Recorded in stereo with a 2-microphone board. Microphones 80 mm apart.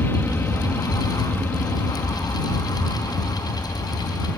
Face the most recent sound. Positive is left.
turn(degrees=20)  # may be behind; listen again after turning